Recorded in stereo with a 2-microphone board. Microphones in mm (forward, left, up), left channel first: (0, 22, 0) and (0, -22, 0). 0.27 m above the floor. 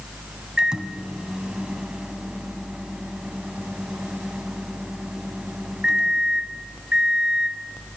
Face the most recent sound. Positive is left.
turn(degrees=-20)  # may be behind; listen again after turning